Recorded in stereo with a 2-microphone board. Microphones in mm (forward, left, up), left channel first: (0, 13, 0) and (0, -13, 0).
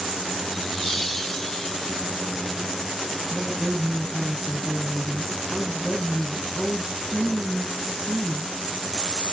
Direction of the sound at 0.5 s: 5° right (ahead or behind).